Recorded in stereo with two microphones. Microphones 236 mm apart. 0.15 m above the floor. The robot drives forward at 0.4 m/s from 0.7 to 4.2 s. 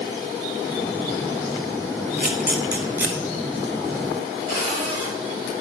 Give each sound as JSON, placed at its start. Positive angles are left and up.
{"t": 2.2, "sound": "a camera shutter", "side_deg": -5, "distance_m": 1.3}
{"t": 4.5, "sound": "a cupboard door", "side_deg": -50, "distance_m": 3.5}